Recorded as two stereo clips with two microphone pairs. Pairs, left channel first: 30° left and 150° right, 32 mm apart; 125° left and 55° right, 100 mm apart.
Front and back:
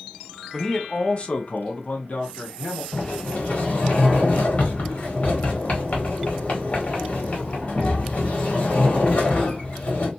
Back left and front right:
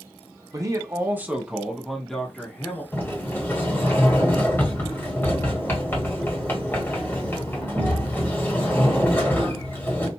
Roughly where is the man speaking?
Ahead right.